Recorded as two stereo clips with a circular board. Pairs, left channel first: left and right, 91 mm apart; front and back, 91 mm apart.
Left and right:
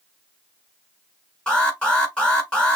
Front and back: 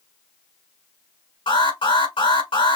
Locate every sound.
1.5 s an alarm: 5° left, 4.5 m